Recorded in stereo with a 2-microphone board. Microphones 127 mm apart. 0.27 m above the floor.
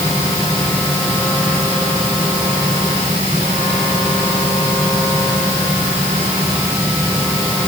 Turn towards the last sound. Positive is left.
No sound to turn to.